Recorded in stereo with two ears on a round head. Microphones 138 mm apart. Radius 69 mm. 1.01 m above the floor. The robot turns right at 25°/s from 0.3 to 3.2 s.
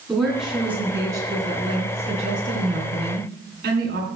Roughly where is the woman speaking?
Behind.